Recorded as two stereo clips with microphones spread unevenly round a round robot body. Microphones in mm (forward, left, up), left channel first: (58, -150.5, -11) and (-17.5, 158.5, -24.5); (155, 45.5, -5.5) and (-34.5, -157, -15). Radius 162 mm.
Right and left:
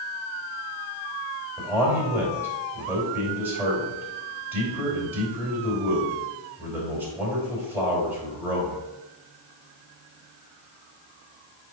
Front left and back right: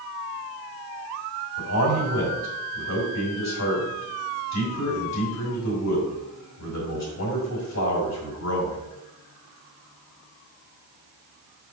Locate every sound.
1.6 s a man speaking: 20° left, 3.5 m